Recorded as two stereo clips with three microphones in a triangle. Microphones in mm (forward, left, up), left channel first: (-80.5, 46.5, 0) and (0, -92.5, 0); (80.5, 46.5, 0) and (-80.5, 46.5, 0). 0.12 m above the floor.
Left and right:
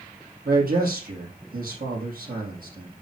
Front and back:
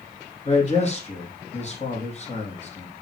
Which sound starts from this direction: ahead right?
A man speaking, at 0.5 s.